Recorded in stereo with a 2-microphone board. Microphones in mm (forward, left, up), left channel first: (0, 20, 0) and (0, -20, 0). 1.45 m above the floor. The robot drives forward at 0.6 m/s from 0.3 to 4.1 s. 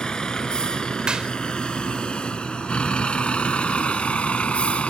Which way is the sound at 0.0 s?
20° left (ahead or behind).